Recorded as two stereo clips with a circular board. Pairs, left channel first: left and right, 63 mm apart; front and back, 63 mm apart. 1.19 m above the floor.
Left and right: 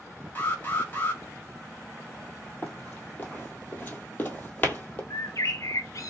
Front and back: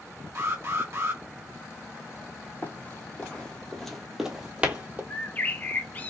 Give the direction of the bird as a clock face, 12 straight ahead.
10 o'clock.